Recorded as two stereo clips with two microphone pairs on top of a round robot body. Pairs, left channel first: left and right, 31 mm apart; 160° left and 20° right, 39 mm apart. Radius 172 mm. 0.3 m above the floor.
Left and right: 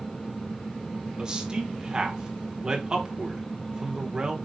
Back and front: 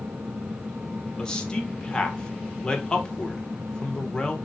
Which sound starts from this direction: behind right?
A man speaking, at 1.2 s.